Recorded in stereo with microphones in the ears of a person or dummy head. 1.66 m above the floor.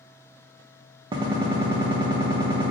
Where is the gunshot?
25° right (ahead or behind), 0.5 m.